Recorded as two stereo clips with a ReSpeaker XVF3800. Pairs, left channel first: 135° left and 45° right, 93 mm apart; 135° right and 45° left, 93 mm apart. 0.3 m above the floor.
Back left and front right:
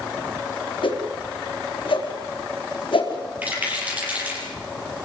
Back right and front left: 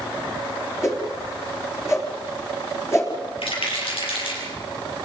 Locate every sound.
0.8 s a whoosh: 165° left, 3.5 m
3.4 s a rattle: 120° right, 7.5 m